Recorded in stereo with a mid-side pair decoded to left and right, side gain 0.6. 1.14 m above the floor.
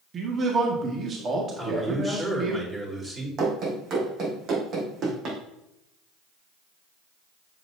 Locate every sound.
0.1 s a man speaking: 40° right, 1.9 m
1.6 s a man speaking: 20° right, 4 m
3.4 s running footsteps: 55° right, 3.5 m